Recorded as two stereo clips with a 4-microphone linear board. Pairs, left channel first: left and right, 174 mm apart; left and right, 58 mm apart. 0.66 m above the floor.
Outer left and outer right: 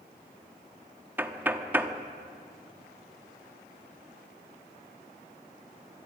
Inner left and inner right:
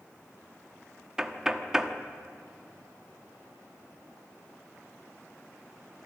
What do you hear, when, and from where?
1.2 s knocking: 10° right (ahead or behind), 1.1 m